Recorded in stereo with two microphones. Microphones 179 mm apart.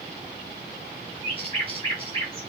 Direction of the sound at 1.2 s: 30° right (ahead or behind).